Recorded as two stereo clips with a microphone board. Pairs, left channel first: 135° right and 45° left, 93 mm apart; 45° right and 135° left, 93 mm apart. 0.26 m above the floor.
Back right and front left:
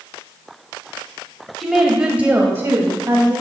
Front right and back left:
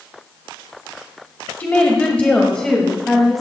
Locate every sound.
1.6 s a woman speaking: 45° right, 1.1 m; by 3.4 s 40° left, 1.4 m